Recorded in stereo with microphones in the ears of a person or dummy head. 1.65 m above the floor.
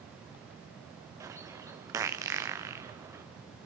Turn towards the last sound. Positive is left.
turn(degrees=-15)  # may be behind; listen again after turning